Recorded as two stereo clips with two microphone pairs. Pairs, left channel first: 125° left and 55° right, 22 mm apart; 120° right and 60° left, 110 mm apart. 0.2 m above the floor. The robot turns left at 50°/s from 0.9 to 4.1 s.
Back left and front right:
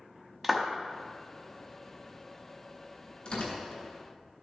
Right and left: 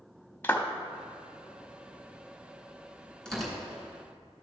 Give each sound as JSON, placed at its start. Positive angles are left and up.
{"t": 0.4, "sound": "a clap", "azimuth_deg": -95, "distance_m": 0.8}
{"t": 3.2, "sound": "tearing paper", "azimuth_deg": 160, "distance_m": 3.0}